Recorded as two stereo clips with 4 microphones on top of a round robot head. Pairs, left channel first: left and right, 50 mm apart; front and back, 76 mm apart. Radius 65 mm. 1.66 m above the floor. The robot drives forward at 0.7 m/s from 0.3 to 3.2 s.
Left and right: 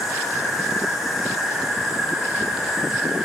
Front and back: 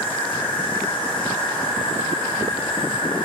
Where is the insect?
10° right, 4.5 m; by 3.2 s 15° right, 3 m.